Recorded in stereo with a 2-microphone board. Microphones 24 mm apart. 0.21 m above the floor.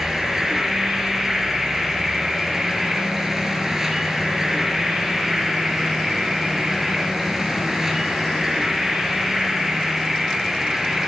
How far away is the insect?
About 3 m.